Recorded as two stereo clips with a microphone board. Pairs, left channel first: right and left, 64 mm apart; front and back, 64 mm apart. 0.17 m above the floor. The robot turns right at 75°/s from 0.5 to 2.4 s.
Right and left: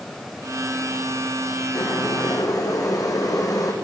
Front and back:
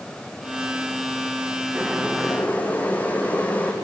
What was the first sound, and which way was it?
Boiling, 115° right.